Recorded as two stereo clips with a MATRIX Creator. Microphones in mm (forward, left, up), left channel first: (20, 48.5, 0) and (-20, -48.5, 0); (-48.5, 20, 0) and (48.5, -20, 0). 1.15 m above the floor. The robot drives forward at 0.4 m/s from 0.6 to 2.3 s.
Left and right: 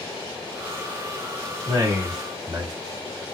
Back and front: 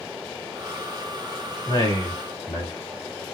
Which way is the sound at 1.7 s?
160° right.